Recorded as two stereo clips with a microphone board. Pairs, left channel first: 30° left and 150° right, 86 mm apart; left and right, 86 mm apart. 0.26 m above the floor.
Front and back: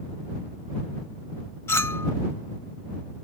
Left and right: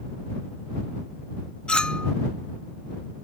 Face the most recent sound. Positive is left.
turn(degrees=20)